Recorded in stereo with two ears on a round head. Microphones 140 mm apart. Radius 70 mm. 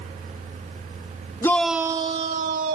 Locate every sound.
1.4 s a shout: 15° left (ahead or behind); by 2.8 s 60° right (ahead or behind)